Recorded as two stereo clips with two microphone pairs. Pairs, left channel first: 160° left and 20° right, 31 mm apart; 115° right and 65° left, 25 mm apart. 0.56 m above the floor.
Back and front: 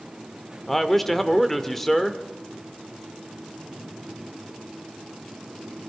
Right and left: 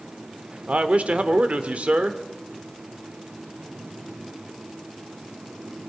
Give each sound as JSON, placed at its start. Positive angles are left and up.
{"t": 0.7, "sound": "a man speaking", "azimuth_deg": 80, "distance_m": 1.3}